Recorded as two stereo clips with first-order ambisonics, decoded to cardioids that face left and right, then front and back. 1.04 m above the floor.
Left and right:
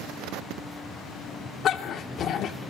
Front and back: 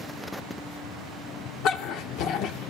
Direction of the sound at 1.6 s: 40° left.